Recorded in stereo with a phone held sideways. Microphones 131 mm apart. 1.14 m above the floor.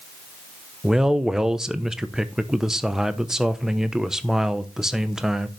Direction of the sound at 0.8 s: 5° right (ahead or behind).